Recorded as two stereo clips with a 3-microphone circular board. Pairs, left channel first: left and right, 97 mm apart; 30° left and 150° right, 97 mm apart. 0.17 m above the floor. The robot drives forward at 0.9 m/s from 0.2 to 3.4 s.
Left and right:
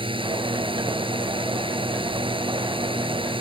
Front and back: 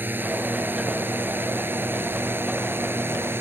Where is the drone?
85° right.